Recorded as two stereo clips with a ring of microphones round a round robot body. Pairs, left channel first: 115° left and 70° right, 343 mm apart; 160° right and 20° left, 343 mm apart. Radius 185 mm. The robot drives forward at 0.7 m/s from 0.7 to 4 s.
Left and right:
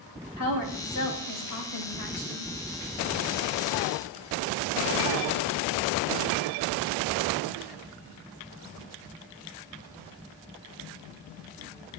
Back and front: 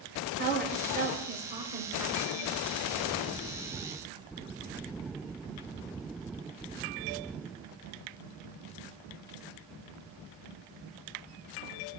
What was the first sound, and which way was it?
A woman speaking, 80° left.